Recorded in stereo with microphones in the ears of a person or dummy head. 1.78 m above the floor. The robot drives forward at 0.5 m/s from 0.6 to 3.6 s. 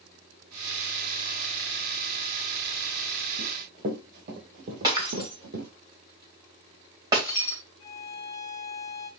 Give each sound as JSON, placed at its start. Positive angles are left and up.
{"t": 3.4, "sound": "running footsteps", "side_deg": -45, "distance_m": 3.5}
{"t": 4.8, "sound": "breaking glass", "side_deg": -15, "distance_m": 2.5}
{"t": 7.8, "sound": "a violin", "side_deg": 15, "distance_m": 1.6}